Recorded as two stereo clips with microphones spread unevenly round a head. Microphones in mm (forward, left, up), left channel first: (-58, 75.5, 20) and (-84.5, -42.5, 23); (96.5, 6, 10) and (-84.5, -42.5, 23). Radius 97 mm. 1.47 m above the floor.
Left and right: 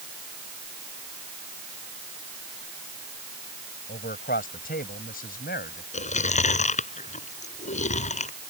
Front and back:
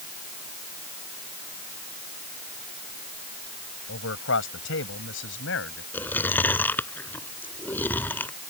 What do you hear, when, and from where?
3.9 s a man speaking: 45° left
5.9 s chewing: 95° left